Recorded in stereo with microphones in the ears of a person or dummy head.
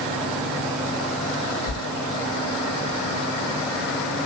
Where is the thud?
45° right (ahead or behind), 1.4 m.